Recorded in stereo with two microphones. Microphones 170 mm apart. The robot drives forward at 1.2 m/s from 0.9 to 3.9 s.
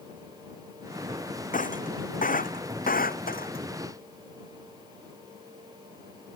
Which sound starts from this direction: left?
Breaking glass, at 1.5 s.